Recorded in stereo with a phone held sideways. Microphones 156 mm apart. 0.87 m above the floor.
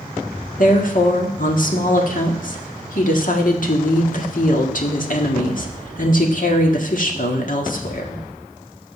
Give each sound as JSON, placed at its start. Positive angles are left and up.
{"t": 0.6, "sound": "a woman speaking", "side_deg": 60, "distance_m": 1.5}